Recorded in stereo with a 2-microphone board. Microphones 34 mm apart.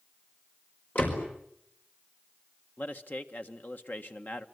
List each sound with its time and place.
0.9 s a door slam: 40° left (ahead or behind), 5 m
2.8 s a man speaking: 55° left (ahead or behind), 1.7 m